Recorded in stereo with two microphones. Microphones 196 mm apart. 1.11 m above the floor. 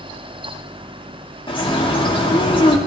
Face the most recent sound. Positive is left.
turn(degrees=25)  # may be behind; listen again after turning